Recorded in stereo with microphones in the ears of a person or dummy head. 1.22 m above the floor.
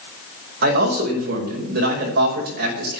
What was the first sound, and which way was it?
A man speaking, 55° right (ahead or behind).